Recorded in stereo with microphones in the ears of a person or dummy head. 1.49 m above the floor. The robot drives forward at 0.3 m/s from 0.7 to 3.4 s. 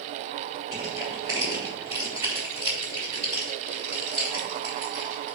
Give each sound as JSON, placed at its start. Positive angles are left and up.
{"t": 0.7, "sound": "crushing", "side_deg": -20, "distance_m": 4.0}